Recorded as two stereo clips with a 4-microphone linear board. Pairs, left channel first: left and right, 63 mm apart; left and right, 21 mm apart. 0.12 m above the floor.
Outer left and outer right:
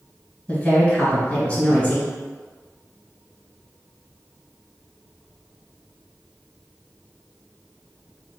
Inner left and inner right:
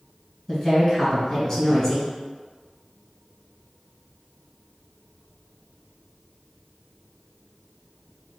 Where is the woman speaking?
25° left (ahead or behind), 1.4 m.